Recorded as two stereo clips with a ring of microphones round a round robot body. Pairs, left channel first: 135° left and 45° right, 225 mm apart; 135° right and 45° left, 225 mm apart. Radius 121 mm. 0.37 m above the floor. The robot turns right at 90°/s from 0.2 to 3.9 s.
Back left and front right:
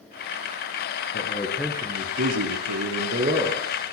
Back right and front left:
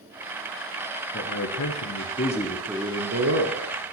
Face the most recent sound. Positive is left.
turn(degrees=70)